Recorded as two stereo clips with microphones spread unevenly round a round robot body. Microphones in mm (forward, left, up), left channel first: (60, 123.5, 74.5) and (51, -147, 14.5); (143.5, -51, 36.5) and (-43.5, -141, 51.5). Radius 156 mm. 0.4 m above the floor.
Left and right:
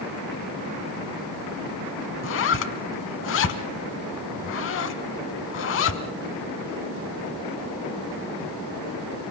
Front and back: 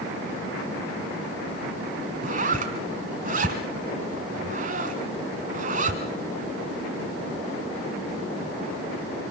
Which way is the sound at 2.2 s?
140° left.